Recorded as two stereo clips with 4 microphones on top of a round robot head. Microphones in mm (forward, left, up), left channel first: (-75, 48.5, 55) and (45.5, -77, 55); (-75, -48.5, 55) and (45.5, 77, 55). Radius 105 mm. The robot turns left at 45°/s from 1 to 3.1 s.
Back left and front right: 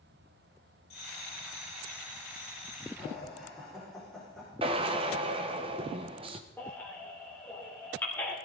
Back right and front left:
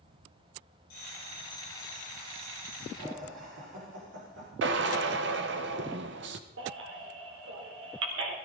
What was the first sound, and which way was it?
A bell, 170° right.